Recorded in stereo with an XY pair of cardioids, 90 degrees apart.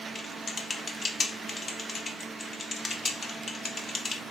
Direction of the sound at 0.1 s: 40° left.